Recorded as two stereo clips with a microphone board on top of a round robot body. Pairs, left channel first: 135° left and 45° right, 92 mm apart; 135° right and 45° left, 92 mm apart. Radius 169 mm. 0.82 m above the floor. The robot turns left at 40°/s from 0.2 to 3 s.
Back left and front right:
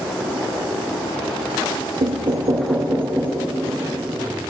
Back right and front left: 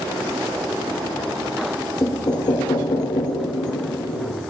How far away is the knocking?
About 0.6 m.